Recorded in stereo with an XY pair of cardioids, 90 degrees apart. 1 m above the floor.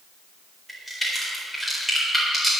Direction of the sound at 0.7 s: 5° right.